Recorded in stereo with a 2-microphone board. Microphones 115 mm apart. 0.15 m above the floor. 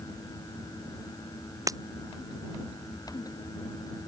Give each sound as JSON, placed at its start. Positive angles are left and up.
{"t": 1.7, "sound": "breaking glass", "side_deg": -30}